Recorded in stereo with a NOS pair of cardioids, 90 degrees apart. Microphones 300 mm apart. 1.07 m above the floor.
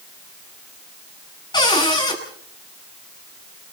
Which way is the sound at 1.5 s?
15° left.